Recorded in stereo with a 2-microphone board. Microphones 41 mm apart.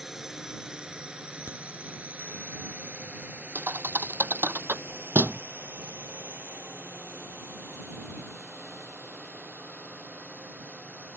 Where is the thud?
55° right (ahead or behind).